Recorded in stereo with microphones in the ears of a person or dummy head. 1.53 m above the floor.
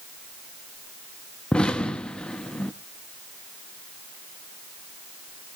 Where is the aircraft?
No aircraft in this recording.